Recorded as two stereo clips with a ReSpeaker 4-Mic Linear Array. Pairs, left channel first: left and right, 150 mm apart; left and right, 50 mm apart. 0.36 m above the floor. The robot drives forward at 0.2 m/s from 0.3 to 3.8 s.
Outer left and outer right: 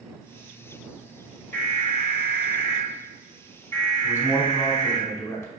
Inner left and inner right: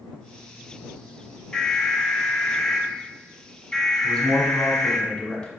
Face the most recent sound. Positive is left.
turn(degrees=20)  # may be behind; listen again after turning